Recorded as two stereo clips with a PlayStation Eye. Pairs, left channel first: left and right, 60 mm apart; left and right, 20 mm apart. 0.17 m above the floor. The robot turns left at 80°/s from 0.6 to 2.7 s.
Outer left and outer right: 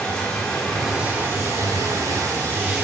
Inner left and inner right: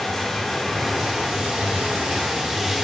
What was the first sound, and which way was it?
Running water, 20° left.